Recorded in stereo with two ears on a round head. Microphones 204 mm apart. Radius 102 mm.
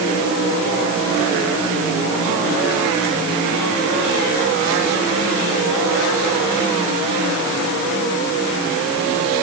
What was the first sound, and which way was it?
Only background noise.